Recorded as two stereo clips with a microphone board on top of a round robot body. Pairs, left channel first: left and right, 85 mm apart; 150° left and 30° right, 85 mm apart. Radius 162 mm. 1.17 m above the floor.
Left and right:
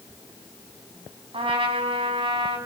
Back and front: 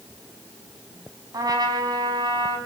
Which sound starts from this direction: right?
A trumpet, at 1.3 s.